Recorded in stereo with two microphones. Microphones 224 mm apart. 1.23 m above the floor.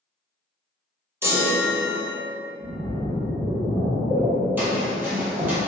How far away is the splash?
About 0.7 m.